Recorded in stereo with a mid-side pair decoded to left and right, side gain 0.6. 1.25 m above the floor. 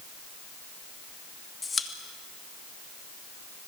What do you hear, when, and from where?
1.6 s a pop: 20° left, 2.5 m